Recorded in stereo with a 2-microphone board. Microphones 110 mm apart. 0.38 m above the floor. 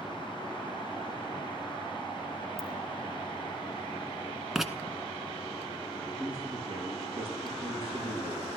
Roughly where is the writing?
Centre.